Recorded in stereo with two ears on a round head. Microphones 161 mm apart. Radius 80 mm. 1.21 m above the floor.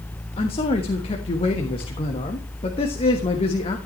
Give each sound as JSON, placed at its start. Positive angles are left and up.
{"t": 0.4, "sound": "a man speaking", "side_deg": 30, "distance_m": 1.4}